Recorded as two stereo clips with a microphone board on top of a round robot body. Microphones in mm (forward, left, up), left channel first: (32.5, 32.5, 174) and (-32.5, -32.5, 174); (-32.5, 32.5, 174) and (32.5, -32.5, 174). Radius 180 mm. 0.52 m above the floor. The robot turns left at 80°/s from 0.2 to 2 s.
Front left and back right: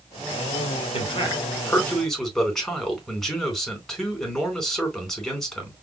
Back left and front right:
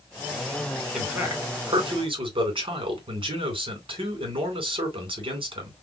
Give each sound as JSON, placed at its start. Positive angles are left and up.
{"t": 0.9, "sound": "a man speaking", "azimuth_deg": 40, "distance_m": 3.5}